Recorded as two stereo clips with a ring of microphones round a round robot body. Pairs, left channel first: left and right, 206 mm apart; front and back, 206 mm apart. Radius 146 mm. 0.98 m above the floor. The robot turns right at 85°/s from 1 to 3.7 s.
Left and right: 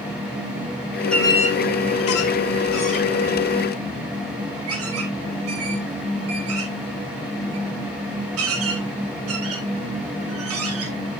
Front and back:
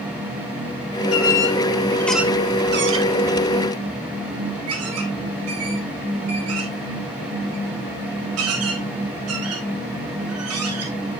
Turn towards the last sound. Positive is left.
turn(degrees=-135)